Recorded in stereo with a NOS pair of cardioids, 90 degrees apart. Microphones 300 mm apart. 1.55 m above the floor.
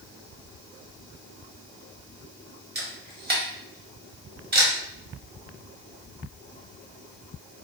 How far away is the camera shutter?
About 1.3 m.